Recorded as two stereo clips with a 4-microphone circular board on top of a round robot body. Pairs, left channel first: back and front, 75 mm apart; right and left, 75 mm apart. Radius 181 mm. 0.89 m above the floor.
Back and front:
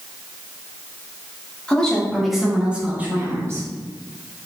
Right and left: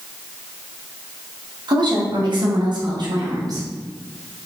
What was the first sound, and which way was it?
A woman speaking, 105° left.